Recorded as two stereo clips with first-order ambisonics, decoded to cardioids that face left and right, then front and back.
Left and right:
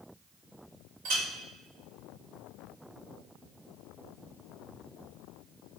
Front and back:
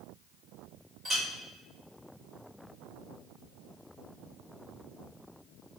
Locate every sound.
1.1 s a clink: 100° right, 1.4 m